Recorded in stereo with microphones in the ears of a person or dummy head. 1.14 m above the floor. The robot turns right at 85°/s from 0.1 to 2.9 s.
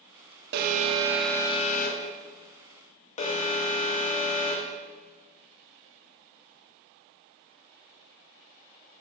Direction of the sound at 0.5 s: 60° right.